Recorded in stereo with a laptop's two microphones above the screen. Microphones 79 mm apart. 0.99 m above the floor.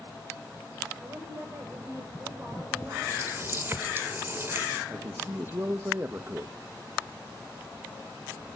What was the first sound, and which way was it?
A woman speaking, 35° right (ahead or behind).